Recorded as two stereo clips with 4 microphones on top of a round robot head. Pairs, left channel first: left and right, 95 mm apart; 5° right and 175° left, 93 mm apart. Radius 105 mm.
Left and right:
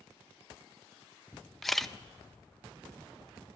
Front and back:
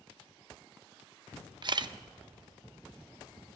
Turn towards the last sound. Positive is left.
turn(degrees=180)